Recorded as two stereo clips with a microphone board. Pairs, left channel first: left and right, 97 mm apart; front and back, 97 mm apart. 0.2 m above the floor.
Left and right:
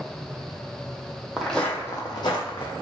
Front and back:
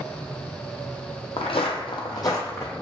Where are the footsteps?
5° right, 0.5 m; by 2.7 s 65° left, 0.8 m.